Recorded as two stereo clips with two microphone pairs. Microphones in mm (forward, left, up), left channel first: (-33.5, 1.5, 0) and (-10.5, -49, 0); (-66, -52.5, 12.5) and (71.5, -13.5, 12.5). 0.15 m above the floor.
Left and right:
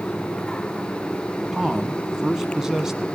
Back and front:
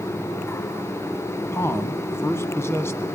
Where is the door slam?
I don't hear a door slam.